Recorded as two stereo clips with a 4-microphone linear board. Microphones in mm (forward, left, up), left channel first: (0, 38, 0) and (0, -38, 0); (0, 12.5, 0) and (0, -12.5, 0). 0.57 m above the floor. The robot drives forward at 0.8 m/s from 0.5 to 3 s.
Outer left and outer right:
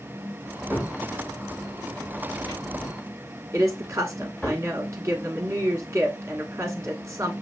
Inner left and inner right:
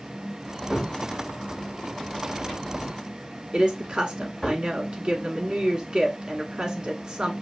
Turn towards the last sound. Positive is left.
turn(degrees=-35)  # may be behind; listen again after turning